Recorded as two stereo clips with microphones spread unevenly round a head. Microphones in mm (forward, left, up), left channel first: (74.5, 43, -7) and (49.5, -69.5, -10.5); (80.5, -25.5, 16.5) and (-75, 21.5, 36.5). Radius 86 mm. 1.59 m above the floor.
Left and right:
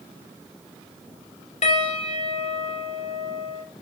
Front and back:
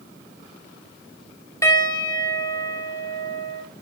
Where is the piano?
60° left, 2.5 m.